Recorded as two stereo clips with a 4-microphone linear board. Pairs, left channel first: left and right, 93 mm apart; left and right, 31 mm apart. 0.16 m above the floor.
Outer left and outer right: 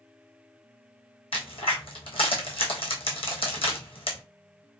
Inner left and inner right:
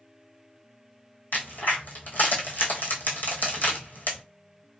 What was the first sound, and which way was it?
A crack, 75° left (ahead or behind).